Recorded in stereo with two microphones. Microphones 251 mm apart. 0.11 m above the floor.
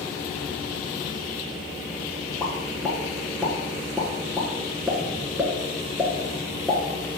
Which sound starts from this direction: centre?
A pop, at 2.4 s.